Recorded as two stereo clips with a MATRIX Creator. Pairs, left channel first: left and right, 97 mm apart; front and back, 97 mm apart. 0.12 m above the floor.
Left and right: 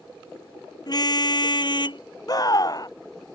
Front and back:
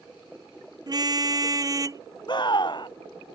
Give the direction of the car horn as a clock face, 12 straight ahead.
8 o'clock.